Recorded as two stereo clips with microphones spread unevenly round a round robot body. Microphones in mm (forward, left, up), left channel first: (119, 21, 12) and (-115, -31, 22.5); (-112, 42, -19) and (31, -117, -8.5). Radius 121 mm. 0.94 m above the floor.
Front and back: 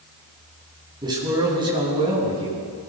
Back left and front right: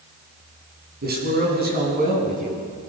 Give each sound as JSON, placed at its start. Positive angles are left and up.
{"t": 1.0, "sound": "a man speaking", "azimuth_deg": -95, "distance_m": 8.5}